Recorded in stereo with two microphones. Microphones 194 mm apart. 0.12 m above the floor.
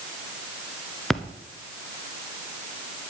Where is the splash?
Centre (ahead or behind), 1.1 m.